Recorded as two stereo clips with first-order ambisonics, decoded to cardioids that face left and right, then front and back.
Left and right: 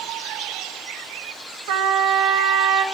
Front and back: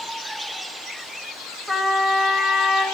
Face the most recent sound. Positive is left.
turn(degrees=-90)